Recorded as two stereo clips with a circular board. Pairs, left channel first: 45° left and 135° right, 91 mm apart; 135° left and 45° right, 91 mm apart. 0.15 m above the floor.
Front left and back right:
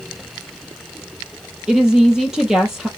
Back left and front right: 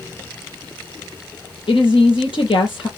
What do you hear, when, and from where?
1.7 s a woman speaking: 145° left, 4 m